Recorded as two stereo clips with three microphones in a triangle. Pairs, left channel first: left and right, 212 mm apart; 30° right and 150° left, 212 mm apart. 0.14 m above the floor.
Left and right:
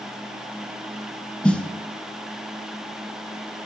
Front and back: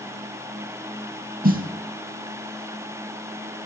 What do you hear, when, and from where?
1.4 s a snare drum: 175° left, 0.9 m